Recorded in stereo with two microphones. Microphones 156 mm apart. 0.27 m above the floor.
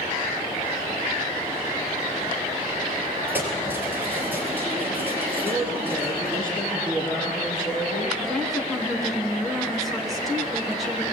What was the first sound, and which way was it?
Keys jangling, 10° right (ahead or behind).